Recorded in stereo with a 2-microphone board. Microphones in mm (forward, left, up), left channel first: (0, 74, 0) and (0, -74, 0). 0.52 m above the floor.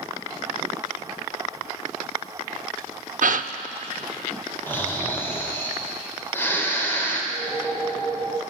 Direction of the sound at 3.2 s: 65° right (ahead or behind).